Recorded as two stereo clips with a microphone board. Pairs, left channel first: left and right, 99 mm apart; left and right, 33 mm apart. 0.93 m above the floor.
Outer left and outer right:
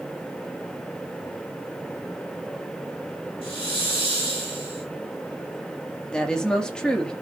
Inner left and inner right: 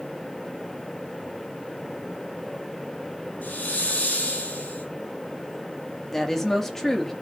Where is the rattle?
I don't hear a rattle.